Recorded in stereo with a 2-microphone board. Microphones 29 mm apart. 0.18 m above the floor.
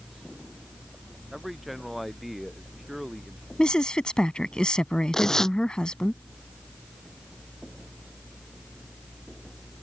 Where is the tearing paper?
20° left (ahead or behind).